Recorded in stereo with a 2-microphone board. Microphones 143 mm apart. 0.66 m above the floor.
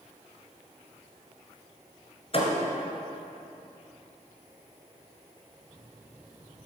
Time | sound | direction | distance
2.3 | a thud | 40° left (ahead or behind) | 1.7 m